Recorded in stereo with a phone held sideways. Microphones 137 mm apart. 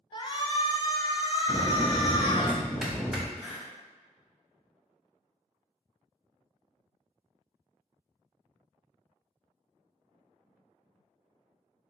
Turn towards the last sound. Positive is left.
turn(degrees=-5)  # may be behind; listen again after turning